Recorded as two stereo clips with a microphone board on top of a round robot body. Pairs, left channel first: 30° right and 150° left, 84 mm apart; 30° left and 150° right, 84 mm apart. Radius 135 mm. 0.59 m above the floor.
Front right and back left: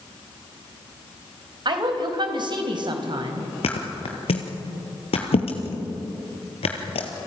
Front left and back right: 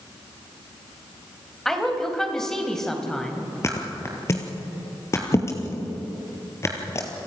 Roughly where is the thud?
Ahead right.